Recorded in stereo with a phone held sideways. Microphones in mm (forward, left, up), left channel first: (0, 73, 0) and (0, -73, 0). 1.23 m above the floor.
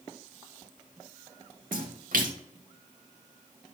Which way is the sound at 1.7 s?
80° right.